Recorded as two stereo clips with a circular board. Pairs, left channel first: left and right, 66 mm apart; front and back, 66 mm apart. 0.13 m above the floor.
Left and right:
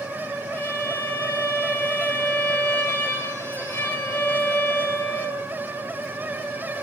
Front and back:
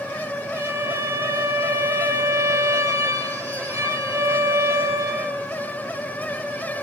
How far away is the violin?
About 6.5 m.